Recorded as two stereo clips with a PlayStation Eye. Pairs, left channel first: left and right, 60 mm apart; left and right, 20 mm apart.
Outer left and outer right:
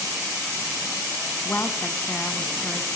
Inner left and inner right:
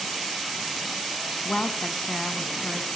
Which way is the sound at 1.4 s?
25° left (ahead or behind).